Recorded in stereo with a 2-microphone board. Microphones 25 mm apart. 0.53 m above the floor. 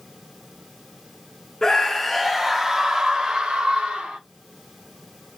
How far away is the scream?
About 1.0 m.